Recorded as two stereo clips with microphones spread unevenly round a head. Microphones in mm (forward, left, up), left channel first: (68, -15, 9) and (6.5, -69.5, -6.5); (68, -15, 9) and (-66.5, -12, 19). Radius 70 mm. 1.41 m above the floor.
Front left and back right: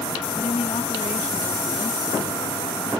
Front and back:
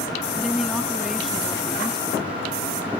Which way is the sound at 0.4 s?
90° left.